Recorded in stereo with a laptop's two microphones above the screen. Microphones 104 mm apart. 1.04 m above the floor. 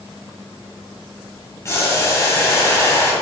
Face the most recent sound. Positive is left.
turn(degrees=30)  # may be behind; listen again after turning